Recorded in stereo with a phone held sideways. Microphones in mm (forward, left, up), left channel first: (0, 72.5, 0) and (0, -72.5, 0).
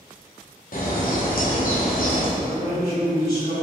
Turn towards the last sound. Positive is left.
turn(degrees=85)